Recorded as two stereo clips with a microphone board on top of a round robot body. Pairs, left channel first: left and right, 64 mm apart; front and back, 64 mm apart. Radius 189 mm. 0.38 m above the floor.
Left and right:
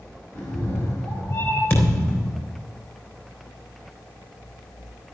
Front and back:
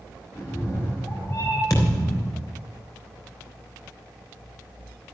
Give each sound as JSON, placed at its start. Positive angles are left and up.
{"t": 0.3, "sound": "a cat meowing", "azimuth_deg": 50, "distance_m": 4.5}
{"t": 1.7, "sound": "a thud", "azimuth_deg": 35, "distance_m": 3.5}